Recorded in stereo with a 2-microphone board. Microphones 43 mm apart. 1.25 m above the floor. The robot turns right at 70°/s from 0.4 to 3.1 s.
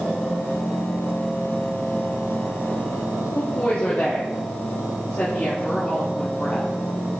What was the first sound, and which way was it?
A woman speaking, 45° left (ahead or behind).